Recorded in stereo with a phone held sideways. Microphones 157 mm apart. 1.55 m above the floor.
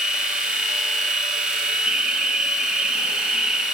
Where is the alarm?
5° right (ahead or behind), 1.1 m.